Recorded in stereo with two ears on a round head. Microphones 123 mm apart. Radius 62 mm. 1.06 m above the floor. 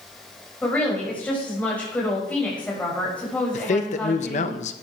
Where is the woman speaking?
10° left (ahead or behind), 5.5 m.